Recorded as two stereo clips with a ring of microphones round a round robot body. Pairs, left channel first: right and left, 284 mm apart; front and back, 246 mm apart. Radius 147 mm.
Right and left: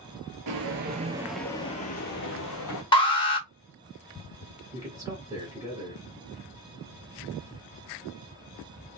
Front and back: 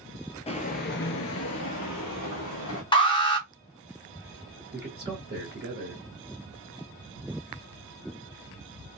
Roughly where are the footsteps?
Ahead left.